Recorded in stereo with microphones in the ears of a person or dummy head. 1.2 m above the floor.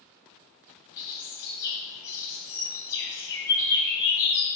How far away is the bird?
About 2 m.